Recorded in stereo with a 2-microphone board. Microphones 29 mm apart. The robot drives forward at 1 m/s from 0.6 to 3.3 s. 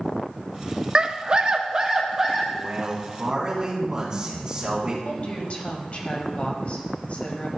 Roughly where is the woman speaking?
Left.